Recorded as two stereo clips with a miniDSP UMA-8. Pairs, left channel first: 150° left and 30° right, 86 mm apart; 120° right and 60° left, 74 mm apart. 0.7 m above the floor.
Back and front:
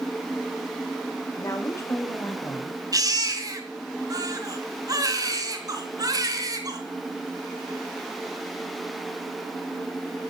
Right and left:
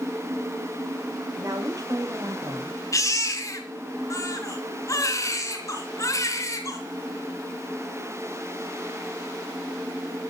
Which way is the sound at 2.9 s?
75° right.